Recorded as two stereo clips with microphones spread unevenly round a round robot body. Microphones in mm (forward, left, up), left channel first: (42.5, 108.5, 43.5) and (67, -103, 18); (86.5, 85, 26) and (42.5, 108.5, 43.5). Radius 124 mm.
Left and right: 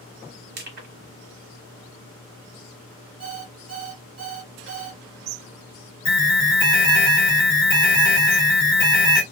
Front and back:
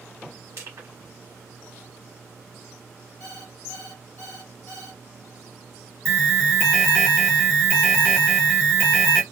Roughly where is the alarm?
Ahead left.